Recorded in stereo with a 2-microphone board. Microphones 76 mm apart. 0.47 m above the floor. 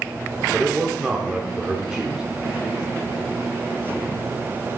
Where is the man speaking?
15° right (ahead or behind), 1.0 m.